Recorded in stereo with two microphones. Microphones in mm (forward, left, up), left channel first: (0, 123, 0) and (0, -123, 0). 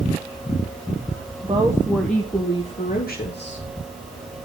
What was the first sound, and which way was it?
A woman speaking, 25° right (ahead or behind).